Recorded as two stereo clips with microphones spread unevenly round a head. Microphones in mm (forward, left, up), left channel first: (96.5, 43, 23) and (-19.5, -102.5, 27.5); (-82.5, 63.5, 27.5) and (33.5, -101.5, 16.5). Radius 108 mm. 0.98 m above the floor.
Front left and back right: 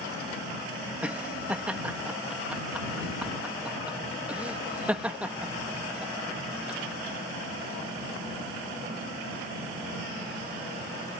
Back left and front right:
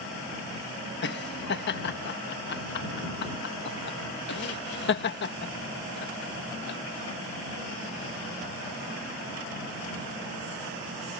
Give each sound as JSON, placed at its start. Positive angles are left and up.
{"t": 1.0, "sound": "laughter", "azimuth_deg": 150}